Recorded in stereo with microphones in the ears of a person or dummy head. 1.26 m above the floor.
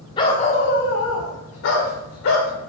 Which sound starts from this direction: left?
A dog barking, at 0.2 s.